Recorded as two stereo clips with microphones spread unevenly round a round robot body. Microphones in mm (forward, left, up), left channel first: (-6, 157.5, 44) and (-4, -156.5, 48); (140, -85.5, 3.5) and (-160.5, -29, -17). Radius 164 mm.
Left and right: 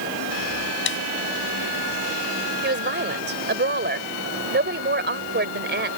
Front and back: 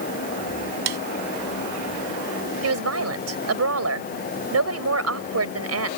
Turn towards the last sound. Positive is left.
turn(degrees=-150)